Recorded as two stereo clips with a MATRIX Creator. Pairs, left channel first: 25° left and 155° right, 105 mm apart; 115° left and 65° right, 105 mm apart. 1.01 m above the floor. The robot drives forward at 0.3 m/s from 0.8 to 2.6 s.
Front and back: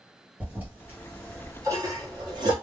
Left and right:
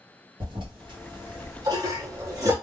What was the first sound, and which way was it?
A toilet flushing, 90° right.